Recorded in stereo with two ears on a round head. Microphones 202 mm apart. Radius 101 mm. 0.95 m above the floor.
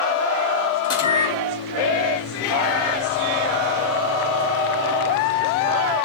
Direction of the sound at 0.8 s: 20° left (ahead or behind).